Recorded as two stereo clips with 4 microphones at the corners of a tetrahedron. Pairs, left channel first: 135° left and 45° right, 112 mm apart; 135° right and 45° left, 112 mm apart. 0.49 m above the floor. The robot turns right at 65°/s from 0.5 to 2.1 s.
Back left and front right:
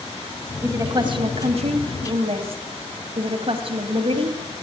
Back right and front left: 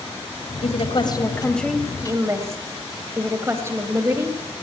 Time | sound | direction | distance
0.6 | a woman speaking | 115° right | 2.5 m